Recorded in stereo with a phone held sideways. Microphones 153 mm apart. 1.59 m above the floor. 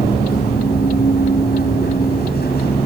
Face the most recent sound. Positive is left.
turn(degrees=80)